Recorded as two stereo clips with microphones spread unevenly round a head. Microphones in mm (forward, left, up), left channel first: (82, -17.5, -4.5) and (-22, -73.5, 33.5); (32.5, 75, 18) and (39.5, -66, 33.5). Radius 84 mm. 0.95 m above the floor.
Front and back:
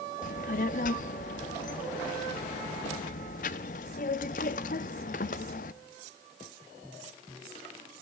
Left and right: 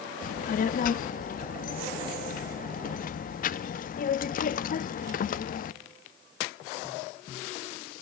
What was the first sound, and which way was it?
A child speaking, 65° left.